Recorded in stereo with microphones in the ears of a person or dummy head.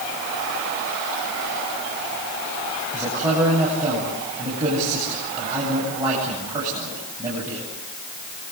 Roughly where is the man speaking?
Right.